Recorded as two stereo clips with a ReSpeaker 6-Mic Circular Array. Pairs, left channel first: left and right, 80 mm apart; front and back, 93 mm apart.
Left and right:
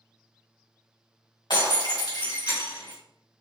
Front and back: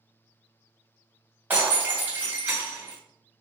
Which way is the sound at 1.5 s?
110° left.